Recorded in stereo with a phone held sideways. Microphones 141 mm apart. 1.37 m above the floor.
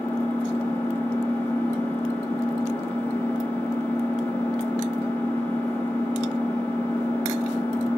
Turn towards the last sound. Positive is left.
turn(degrees=15)  # may be behind; listen again after turning